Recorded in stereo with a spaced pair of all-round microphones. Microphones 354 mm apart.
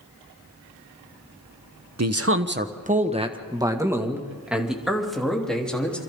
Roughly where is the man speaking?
Right.